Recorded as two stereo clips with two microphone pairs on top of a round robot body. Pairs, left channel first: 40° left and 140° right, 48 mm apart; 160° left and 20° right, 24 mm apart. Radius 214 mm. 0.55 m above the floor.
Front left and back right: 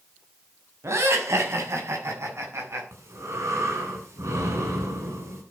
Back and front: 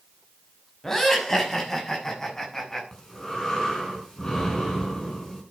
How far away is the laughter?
About 6 m.